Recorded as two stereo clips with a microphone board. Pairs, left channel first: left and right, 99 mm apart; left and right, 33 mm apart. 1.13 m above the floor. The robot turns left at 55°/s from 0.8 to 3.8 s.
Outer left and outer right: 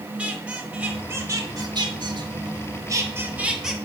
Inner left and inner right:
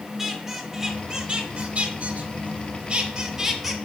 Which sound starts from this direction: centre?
A squeak, at 0.2 s.